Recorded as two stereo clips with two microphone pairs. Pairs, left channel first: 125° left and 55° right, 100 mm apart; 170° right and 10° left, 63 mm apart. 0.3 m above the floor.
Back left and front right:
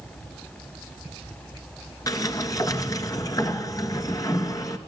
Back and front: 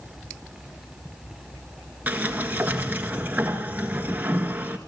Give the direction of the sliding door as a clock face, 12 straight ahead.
10 o'clock.